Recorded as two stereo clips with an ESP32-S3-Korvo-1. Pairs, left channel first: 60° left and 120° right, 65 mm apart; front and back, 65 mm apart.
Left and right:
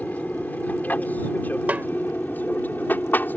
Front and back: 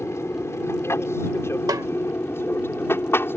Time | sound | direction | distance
0.0 | an aircraft | 5° left | ?
1.7 | a snare drum | 175° left | ?